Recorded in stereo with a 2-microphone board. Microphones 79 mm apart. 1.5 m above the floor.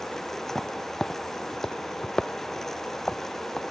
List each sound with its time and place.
0.5 s footsteps: 5° left (ahead or behind); by 3.6 s 10° left (ahead or behind)